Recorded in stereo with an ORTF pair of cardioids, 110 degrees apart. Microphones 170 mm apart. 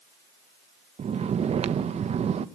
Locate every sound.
1.0 s snoring: 40° right, 1.2 m